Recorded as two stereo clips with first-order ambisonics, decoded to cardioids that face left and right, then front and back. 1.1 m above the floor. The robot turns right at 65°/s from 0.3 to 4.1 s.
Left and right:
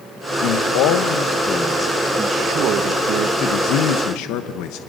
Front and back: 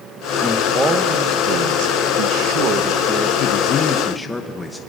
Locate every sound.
0.4 s a man speaking: 75° left, 1.0 m; by 3.3 s 95° right, 1.0 m
3.4 s a man speaking: 40° left, 1.1 m; by 4.8 s 85° left, 1.1 m